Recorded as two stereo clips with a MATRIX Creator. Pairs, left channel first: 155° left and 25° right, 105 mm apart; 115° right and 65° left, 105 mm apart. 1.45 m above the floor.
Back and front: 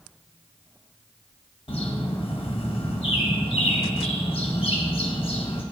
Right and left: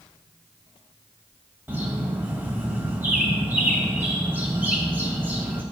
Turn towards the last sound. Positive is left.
turn(degrees=135)